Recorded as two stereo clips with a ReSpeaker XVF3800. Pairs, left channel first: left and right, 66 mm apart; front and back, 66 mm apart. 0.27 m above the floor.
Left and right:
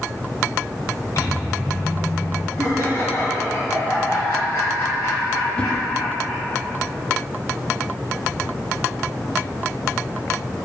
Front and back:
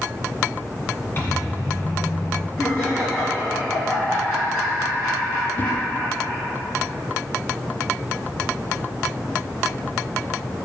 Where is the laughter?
50° left, 2 m.